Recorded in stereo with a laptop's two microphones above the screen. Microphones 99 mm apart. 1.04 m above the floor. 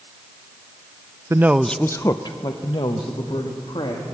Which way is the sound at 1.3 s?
30° right (ahead or behind).